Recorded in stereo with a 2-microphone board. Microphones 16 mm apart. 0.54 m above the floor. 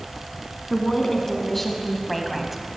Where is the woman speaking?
25° left (ahead or behind), 4 m; by 2.6 s 15° right (ahead or behind), 2.5 m.